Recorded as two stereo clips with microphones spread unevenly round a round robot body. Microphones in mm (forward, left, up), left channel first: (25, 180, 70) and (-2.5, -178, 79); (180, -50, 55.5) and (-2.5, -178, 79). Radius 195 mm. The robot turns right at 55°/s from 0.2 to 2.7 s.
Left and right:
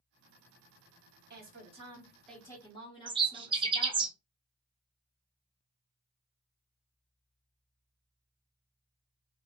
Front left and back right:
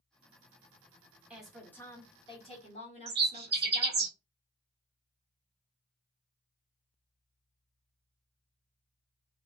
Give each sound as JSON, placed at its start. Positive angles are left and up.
{"t": 1.3, "sound": "a woman speaking", "azimuth_deg": -55, "distance_m": 1.3}
{"t": 3.1, "sound": "a bird", "azimuth_deg": -165, "distance_m": 0.5}